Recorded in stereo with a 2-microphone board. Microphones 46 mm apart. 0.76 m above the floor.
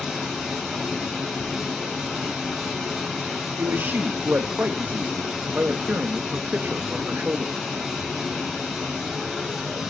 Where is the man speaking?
45° right (ahead or behind), 0.6 m.